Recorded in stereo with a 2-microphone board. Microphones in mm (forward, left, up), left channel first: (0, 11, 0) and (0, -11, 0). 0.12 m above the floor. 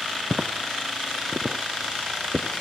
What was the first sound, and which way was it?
Footsteps, 40° right (ahead or behind).